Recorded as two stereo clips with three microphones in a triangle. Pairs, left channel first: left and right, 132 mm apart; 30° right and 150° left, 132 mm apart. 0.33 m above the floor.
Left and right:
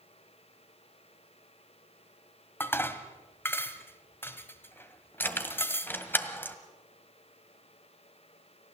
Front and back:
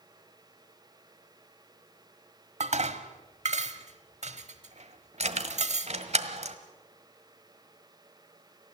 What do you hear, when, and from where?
2.6 s dishes clattering: 160° left, 1.2 m
5.2 s keys jangling: 160° left, 1.4 m